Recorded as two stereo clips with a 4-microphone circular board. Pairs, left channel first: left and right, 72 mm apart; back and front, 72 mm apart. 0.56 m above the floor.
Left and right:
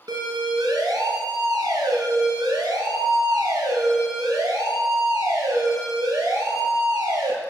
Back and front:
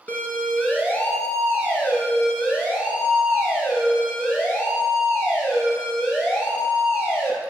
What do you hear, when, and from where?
0.1 s a siren: 115° right, 5.5 m; by 7.3 s 120° right, 12.5 m